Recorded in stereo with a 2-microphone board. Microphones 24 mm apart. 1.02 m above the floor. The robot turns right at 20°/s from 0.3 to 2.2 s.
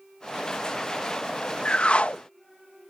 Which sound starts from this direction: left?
A whoosh, at 1.6 s.